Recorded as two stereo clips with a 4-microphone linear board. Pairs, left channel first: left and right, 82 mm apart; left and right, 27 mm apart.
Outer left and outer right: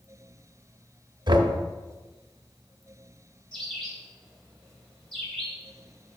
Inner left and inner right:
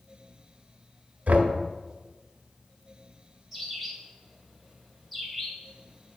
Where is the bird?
10° left (ahead or behind), 2 m.